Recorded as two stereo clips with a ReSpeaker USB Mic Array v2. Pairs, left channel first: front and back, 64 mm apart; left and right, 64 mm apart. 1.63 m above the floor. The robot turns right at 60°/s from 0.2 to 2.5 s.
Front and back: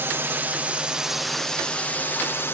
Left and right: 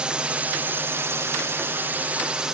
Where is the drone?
155° right; by 2.5 s 15° right.